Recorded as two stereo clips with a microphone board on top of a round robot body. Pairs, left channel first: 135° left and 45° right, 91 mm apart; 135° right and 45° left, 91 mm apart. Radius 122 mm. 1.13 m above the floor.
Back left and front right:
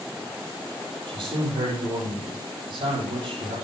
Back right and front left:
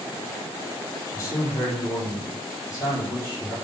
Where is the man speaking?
80° right, 6 m.